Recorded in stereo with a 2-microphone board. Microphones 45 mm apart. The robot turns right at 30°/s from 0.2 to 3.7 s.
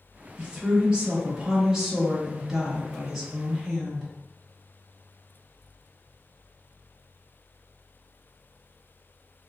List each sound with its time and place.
0.4 s a woman speaking: 25° right (ahead or behind), 1.1 m; by 4.1 s 5° left (ahead or behind), 1.1 m